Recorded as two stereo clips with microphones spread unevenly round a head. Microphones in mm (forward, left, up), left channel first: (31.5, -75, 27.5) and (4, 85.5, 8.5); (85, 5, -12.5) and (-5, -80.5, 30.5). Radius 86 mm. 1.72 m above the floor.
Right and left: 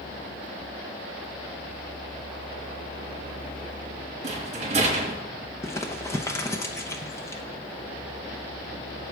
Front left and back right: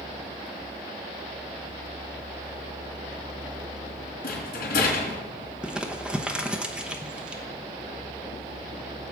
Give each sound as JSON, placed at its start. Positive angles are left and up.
{"t": 4.2, "sound": "a rattle", "azimuth_deg": 50, "distance_m": 4.0}
{"t": 5.6, "sound": "crumpling", "azimuth_deg": -120, "distance_m": 0.9}